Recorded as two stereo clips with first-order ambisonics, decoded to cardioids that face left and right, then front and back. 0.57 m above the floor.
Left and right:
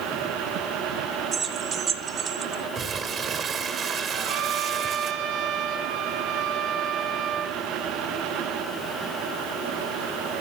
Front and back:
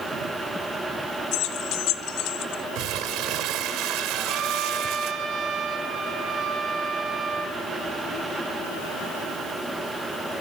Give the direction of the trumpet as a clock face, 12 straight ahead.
4 o'clock.